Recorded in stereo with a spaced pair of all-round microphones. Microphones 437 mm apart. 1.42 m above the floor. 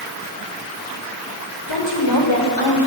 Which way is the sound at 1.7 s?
75° left (ahead or behind).